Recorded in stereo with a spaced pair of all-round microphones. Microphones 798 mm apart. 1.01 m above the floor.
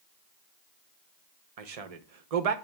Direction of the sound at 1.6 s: 50° right (ahead or behind).